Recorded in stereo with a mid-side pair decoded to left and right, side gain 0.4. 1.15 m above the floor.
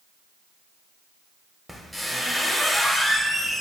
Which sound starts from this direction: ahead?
A squeak, at 1.7 s.